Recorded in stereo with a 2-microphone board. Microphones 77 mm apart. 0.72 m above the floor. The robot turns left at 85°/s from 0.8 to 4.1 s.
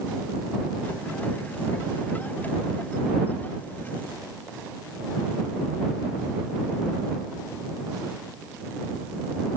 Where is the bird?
No bird in this recording.